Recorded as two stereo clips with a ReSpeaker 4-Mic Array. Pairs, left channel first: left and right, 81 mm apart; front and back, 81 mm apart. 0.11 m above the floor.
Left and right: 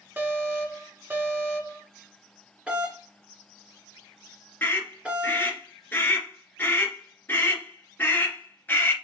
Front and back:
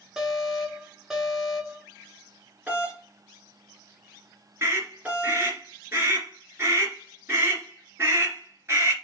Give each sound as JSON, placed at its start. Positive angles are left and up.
{"t": 0.2, "sound": "an alarm", "azimuth_deg": -110, "distance_m": 1.0}
{"t": 2.7, "sound": "a doorbell", "azimuth_deg": -145, "distance_m": 1.6}
{"t": 4.6, "sound": "a scream", "azimuth_deg": 140, "distance_m": 2.0}